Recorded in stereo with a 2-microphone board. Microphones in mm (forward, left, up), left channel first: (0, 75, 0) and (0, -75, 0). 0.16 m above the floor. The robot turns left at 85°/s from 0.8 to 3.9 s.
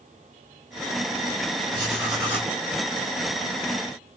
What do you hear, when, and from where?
1.7 s writing: 140° right, 3 m; by 2.5 s 150° left, 3 m